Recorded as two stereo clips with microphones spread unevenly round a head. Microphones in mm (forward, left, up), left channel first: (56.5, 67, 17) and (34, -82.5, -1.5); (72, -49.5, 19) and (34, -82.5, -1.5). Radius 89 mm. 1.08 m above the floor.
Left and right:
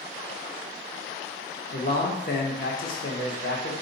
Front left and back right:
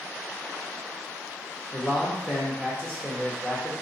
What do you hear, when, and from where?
1.7 s a man speaking: 125° left, 0.8 m